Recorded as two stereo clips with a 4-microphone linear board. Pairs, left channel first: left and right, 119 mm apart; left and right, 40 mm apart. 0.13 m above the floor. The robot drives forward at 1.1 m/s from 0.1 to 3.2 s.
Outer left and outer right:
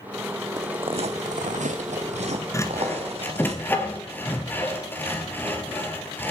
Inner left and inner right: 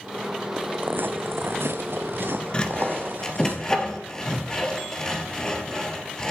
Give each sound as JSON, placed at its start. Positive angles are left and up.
{"t": 0.6, "sound": "footsteps", "side_deg": -30, "distance_m": 0.6}
{"t": 2.5, "sound": "sawing", "side_deg": 25, "distance_m": 1.2}